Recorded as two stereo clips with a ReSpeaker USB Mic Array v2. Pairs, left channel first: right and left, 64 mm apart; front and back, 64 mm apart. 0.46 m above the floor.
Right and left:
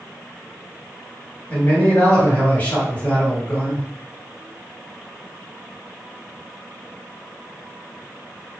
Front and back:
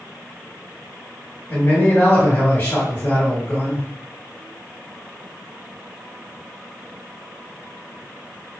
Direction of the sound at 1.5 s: 45° right.